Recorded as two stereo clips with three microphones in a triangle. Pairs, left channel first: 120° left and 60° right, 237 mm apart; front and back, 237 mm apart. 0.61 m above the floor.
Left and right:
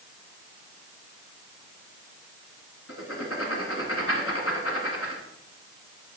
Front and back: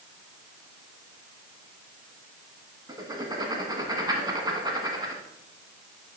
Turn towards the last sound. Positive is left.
turn(degrees=105)